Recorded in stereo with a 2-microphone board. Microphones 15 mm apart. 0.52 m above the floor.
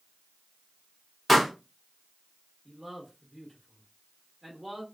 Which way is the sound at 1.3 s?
5° left (ahead or behind).